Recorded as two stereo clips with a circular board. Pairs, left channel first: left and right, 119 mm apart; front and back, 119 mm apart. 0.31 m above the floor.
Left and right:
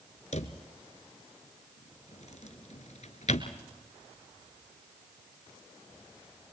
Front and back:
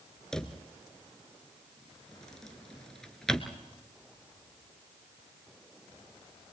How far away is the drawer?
About 1.2 m.